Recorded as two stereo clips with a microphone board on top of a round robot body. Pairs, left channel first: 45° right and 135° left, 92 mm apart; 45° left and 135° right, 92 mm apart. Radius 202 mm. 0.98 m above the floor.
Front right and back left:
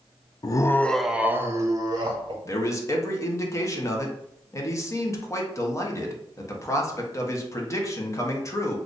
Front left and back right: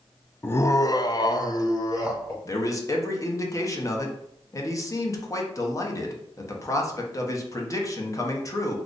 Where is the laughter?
15° right, 0.6 m; by 2.4 s 100° left, 1.0 m.